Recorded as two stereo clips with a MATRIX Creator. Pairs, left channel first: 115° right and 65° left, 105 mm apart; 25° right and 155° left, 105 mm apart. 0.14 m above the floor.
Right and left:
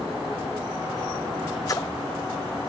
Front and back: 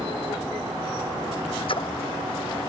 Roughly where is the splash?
Ahead right.